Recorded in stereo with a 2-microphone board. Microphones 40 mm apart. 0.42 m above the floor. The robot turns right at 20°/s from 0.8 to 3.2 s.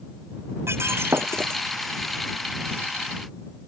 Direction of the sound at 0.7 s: 80° right.